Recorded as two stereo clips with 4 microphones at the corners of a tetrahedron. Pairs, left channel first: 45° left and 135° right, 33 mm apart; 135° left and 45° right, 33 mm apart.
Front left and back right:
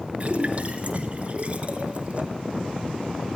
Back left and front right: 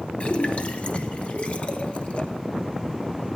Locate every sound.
0.2 s a splash: straight behind, 1.1 m